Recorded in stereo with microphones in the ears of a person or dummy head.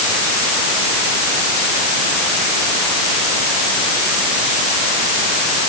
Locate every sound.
Only background noise.